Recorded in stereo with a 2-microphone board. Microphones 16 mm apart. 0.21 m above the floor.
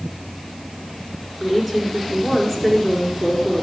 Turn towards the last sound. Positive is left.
turn(degrees=-15)  # may be behind; listen again after turning